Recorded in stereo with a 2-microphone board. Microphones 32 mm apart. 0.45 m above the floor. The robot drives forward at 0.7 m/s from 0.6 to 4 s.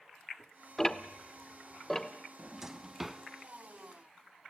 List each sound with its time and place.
0.8 s ticking: 15° left (ahead or behind), 1.0 m; by 2.1 s 10° left (ahead or behind), 1.6 m
2.4 s a drawer: 20° right (ahead or behind), 0.7 m; by 3.2 s 10° right (ahead or behind), 1.3 m